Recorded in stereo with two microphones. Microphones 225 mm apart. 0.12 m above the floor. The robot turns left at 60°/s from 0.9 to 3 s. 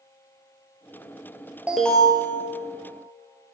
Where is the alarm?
175° right, 1.7 m; by 2.2 s 150° left, 1.7 m.